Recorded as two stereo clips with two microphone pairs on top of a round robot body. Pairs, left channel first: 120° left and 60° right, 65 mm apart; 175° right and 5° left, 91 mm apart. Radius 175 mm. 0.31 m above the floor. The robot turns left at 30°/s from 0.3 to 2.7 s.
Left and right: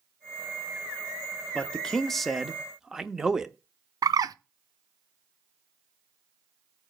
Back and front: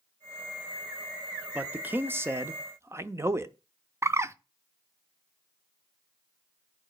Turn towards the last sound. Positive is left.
turn(degrees=-45)